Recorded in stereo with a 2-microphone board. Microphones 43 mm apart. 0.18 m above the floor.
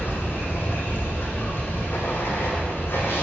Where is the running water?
60° left (ahead or behind), 2.5 m.